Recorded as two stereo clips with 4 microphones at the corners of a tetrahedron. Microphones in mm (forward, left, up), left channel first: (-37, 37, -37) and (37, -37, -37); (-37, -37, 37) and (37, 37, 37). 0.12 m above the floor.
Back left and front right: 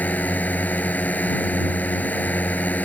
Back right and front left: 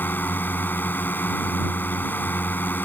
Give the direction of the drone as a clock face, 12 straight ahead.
6 o'clock.